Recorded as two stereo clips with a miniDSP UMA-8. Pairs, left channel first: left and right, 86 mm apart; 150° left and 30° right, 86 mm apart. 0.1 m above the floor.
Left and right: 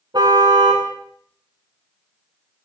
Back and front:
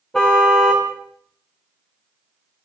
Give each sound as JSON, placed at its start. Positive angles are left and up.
{"t": 0.1, "sound": "a car horn", "azimuth_deg": -125, "distance_m": 5.5}